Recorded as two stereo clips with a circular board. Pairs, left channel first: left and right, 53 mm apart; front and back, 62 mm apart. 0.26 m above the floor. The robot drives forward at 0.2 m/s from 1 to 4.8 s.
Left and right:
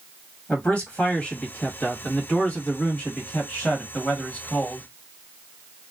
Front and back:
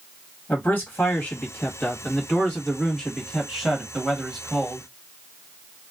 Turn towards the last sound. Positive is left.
turn(degrees=100)